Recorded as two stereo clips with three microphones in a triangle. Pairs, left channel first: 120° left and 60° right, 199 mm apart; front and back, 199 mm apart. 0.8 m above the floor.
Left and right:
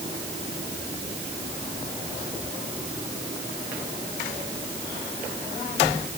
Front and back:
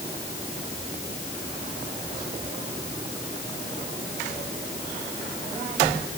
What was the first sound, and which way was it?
Only background noise.